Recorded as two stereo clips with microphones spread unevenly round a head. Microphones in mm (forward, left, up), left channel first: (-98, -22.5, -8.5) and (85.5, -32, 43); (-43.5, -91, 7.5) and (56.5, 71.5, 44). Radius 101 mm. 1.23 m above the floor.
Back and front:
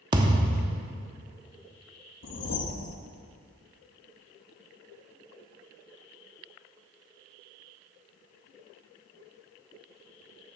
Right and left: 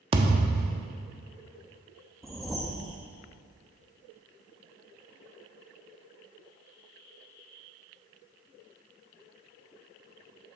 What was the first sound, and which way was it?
A thud, 25° left.